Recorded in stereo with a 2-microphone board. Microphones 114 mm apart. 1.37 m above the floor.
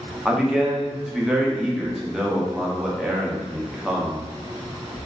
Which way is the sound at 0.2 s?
5° right (ahead or behind).